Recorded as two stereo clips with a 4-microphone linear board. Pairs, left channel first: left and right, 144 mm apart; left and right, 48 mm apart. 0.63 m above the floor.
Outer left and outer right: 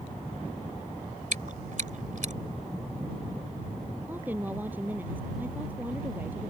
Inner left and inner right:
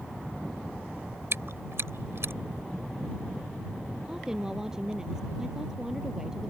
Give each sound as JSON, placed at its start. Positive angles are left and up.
{"t": 1.3, "sound": "chewing", "side_deg": -65}
{"t": 4.1, "sound": "a woman speaking", "side_deg": -10}